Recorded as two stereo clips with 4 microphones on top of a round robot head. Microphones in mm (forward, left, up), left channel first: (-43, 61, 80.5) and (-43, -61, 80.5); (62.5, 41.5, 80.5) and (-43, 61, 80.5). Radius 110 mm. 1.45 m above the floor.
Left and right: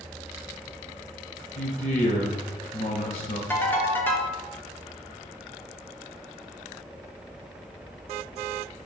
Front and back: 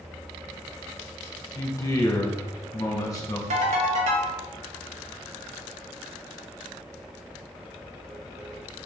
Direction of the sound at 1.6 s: 50° left.